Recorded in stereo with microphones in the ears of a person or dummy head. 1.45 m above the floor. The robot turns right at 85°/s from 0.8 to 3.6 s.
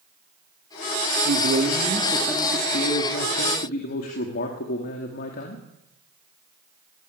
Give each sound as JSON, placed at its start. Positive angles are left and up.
{"t": 1.2, "sound": "a man speaking", "azimuth_deg": -80, "distance_m": 2.5}